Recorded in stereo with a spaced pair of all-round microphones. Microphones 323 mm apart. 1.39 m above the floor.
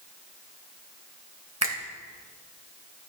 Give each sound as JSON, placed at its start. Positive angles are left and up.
{"t": 1.6, "sound": "a finger snap", "side_deg": -50, "distance_m": 1.9}